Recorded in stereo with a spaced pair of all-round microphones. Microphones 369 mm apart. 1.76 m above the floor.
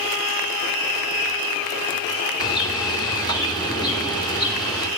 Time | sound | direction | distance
2.4 | a bird | 10° left (ahead or behind) | 3 m